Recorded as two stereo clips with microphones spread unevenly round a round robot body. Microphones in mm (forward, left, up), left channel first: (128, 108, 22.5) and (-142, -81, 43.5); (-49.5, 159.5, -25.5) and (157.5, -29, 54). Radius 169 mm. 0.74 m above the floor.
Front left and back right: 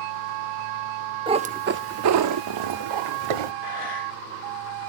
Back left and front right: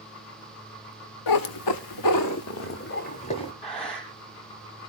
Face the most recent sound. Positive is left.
turn(degrees=65)